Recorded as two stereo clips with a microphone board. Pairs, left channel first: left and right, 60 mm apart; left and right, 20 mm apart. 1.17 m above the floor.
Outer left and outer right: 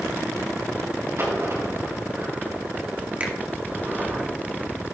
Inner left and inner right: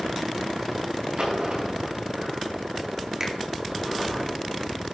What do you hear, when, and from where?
1.2 s a dropped coin: 50° right (ahead or behind), 4.5 m
3.2 s a finger snap: 25° right (ahead or behind), 1.9 m